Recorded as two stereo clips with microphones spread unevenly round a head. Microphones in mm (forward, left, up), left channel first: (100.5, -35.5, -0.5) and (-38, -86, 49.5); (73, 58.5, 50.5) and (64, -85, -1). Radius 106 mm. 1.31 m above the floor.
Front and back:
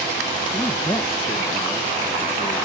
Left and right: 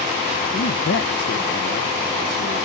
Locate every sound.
0.5 s a man speaking: 90° left